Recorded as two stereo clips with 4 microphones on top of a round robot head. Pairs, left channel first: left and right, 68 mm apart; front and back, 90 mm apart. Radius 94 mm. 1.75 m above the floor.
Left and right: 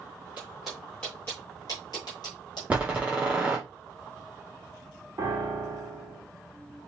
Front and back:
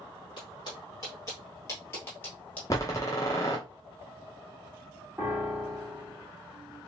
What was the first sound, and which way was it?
Footsteps, 15° right.